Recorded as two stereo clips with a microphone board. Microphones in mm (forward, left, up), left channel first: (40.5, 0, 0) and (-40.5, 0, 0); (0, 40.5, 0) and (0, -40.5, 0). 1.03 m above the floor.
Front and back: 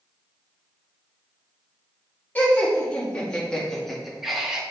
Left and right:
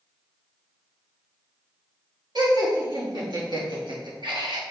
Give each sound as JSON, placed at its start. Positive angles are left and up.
{"t": 2.4, "sound": "laughter", "azimuth_deg": -70, "distance_m": 3.0}